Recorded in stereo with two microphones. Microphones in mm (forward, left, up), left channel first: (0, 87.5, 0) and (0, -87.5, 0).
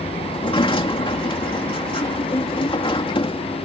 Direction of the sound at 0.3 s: 30° left (ahead or behind).